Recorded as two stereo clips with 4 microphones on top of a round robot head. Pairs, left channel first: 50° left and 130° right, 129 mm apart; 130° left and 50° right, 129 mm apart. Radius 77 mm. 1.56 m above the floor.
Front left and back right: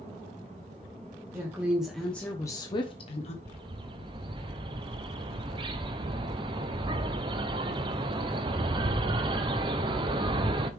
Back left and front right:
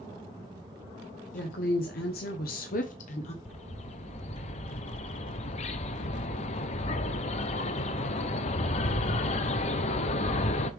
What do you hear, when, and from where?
1.3 s a woman speaking: 160° left, 1.1 m; by 3.4 s 90° left, 1.2 m
3.5 s a bird: 175° left, 0.6 m